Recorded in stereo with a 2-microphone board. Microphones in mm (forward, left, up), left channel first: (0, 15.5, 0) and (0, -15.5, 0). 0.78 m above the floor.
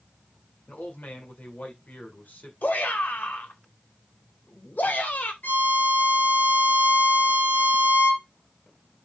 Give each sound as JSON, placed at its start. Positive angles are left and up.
{"t": 0.7, "sound": "a man speaking", "side_deg": 70, "distance_m": 2.5}
{"t": 2.6, "sound": "a shout", "side_deg": 75, "distance_m": 3.5}
{"t": 5.4, "sound": "a violin", "side_deg": 75, "distance_m": 3.5}